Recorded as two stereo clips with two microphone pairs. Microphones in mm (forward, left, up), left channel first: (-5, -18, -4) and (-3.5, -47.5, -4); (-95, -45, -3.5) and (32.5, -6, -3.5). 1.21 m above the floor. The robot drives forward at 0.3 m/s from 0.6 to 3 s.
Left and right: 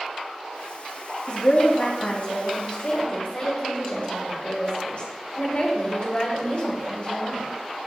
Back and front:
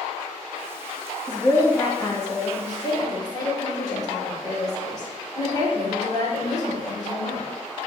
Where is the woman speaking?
125° left, 1.7 m; by 7.5 s 140° left, 2 m.